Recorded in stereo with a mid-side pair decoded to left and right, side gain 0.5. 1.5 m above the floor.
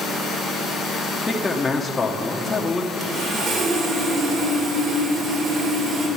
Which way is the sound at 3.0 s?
60° right.